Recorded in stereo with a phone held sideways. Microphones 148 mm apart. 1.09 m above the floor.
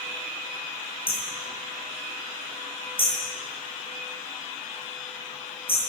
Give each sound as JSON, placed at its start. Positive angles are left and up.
{"t": 1.1, "sound": "hammering", "side_deg": 40, "distance_m": 8.5}